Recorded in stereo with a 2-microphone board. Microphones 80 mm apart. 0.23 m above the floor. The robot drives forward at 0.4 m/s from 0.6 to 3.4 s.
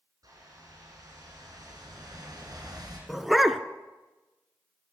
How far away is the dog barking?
About 0.7 m.